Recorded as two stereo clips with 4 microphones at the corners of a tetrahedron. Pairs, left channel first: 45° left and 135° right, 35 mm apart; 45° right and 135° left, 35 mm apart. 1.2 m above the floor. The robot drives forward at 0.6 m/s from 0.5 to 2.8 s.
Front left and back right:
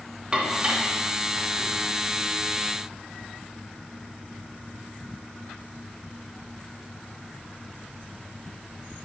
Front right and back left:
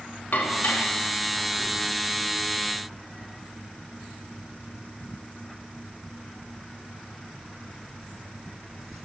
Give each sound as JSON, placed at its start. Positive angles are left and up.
{"t": 0.3, "sound": "dishes clattering", "azimuth_deg": -70, "distance_m": 1.3}